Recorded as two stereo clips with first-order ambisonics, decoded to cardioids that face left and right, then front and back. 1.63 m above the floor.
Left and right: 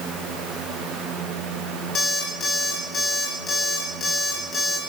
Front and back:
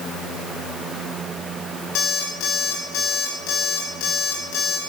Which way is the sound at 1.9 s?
25° left.